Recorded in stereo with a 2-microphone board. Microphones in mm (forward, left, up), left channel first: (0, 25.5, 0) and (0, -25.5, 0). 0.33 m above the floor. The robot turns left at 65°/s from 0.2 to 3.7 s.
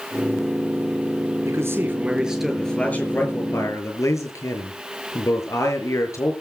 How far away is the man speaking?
About 6 m.